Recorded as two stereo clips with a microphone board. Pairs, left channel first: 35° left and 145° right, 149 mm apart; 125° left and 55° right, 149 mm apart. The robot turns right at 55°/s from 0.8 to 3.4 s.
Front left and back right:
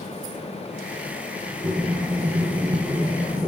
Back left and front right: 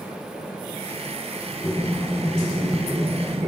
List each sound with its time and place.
1.6 s breathing: 175° right, 0.9 m; by 3.5 s 75° right, 0.9 m